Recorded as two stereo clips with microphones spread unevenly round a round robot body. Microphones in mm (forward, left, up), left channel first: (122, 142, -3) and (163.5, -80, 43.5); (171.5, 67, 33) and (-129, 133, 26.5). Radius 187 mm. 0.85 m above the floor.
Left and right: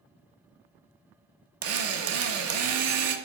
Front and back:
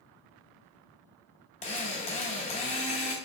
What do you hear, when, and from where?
1.6 s a drill: 85° right, 0.6 m